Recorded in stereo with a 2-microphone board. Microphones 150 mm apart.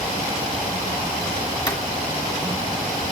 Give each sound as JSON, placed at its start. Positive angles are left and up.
{"t": 1.7, "sound": "footsteps", "side_deg": 20, "distance_m": 1.8}